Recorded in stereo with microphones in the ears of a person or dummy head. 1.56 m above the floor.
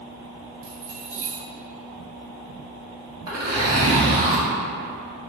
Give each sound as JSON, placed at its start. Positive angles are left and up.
{"t": 0.6, "sound": "keys jangling", "side_deg": -50, "distance_m": 0.8}
{"t": 3.3, "sound": "a zipper", "side_deg": -20, "distance_m": 0.7}